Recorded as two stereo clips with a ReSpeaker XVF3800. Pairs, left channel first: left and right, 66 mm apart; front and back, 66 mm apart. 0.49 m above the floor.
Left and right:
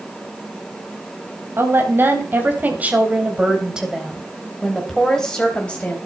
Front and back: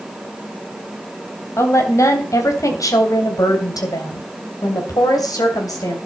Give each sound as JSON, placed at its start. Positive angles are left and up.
{"t": 1.6, "sound": "a woman speaking", "azimuth_deg": -40, "distance_m": 3.5}